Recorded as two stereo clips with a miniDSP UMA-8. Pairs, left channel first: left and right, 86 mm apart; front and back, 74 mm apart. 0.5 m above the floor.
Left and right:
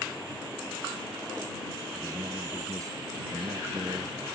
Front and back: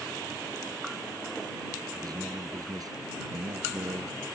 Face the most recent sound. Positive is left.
turn(degrees=-145)